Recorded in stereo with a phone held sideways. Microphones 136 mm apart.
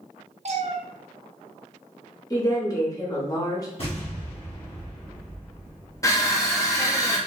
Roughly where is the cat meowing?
Right.